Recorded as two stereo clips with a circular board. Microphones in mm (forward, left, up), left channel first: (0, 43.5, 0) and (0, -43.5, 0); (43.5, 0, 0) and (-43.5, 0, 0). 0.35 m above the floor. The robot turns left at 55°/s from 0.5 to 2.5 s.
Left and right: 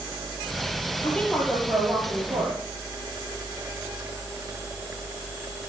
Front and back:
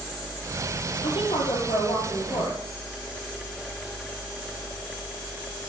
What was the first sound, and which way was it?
A woman speaking, 25° left.